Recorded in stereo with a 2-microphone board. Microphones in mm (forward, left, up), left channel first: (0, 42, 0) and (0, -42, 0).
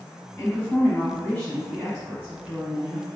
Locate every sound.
0.4 s a woman speaking: 20° left (ahead or behind), 1.6 m; by 3.1 s 15° right (ahead or behind), 1.7 m